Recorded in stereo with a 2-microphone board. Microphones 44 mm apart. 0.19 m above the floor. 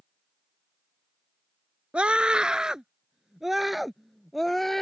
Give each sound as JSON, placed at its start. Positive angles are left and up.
{"t": 1.9, "sound": "a scream", "side_deg": -25}